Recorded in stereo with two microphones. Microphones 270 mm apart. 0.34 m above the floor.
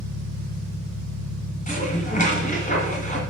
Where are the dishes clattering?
30° left (ahead or behind), 2.5 m.